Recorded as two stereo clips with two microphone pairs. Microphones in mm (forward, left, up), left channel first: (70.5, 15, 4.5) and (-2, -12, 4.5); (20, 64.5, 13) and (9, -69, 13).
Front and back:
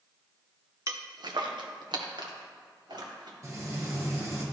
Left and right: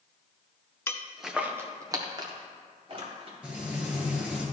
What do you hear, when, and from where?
0.9 s footsteps: 155° left, 1.0 m; by 3.3 s 140° right, 3.5 m
3.4 s frying: 175° right, 2 m